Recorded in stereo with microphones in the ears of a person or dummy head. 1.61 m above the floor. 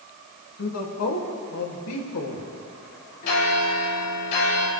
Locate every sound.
0.6 s a woman speaking: 85° left, 3 m
3.2 s a bell: 45° left (ahead or behind), 4 m